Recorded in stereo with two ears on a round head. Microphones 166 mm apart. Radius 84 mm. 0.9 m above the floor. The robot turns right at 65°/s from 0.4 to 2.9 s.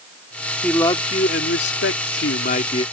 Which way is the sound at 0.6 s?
5° left.